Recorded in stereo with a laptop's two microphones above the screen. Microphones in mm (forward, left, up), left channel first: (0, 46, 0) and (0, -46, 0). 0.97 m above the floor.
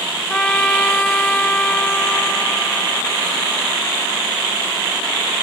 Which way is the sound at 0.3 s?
15° left (ahead or behind).